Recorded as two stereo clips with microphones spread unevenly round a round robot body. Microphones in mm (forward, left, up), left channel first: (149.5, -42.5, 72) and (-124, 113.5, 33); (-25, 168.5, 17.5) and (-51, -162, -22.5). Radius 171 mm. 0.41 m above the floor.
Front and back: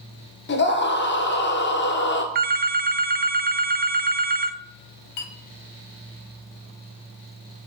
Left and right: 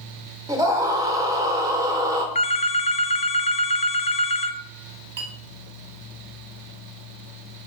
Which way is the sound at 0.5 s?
45° right.